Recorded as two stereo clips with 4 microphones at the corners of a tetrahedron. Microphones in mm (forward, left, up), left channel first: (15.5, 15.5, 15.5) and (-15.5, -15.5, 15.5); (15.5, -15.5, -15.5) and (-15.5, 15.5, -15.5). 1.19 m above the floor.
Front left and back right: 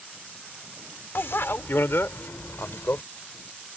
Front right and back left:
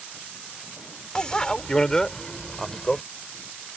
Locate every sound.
1.1 s a bicycle bell: 20° left; by 3.0 s 30° left